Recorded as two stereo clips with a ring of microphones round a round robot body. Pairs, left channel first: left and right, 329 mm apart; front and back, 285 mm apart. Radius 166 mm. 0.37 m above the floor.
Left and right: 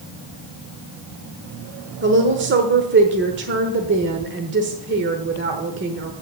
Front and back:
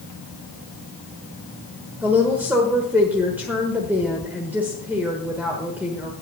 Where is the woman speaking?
100° right, 1.1 m.